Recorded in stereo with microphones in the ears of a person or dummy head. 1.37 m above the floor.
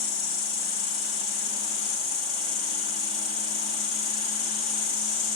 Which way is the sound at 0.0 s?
30° left (ahead or behind).